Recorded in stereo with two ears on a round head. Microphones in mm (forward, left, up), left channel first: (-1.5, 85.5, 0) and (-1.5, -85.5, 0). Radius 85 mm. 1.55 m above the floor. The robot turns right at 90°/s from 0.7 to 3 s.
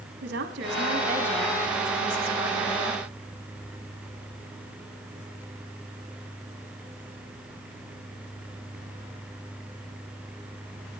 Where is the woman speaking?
60° right, 3 m; by 3.0 s 150° left, 3 m.